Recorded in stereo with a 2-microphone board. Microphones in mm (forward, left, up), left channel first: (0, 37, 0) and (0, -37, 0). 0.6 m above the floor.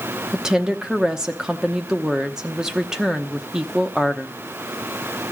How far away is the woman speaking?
About 0.8 m.